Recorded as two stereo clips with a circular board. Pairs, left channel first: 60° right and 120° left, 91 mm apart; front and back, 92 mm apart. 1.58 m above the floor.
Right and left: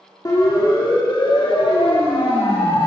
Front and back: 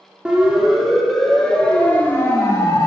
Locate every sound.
0.2 s a siren: 100° right, 3 m; by 2.9 s 45° right, 2.5 m